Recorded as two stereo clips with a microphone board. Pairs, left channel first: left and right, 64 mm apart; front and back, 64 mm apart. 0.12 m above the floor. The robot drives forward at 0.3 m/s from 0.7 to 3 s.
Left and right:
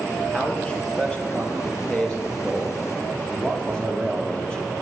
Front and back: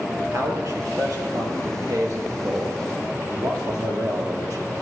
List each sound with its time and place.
0.3 s a man speaking: 160° left, 2.5 m; by 4.8 s 165° left, 3 m